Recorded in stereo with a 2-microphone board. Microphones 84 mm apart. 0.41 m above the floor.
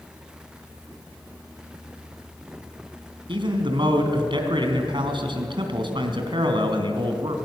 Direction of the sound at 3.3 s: 70° right (ahead or behind).